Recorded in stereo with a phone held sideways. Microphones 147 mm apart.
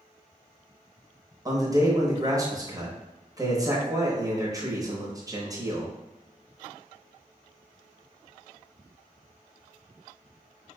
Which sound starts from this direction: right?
A man speaking, at 1.4 s.